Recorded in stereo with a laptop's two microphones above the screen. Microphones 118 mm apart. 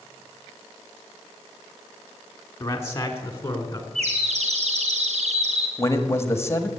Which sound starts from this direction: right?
A bird, at 4.0 s.